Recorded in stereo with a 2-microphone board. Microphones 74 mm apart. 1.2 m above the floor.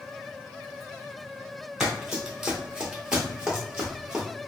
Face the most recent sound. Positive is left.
turn(degrees=-10)  # may be behind; listen again after turning